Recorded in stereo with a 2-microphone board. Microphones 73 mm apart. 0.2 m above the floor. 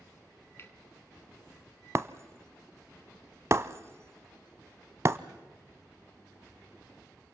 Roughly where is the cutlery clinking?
Left.